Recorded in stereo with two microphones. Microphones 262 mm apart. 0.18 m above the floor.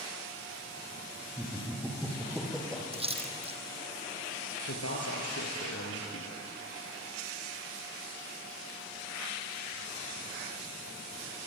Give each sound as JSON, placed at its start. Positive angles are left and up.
{"t": 1.4, "sound": "laughter", "side_deg": -10, "distance_m": 5.0}
{"t": 2.9, "sound": "a splash", "side_deg": -20, "distance_m": 2.5}
{"t": 4.7, "sound": "a man speaking", "side_deg": 65, "distance_m": 3.5}